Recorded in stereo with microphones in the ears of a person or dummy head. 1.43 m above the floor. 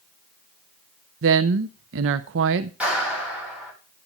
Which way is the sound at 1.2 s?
70° right (ahead or behind).